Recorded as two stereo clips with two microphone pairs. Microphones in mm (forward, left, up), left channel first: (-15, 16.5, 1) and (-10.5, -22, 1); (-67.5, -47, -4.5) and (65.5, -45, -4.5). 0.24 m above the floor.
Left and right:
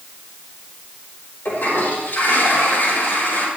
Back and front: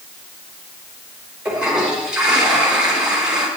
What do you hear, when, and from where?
1.4 s a toilet flushing: 85° left, 4.5 m